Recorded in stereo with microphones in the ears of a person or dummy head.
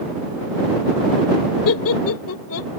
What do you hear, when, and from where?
1.6 s laughter: 80° left; by 2.7 s 75° left (ahead or behind)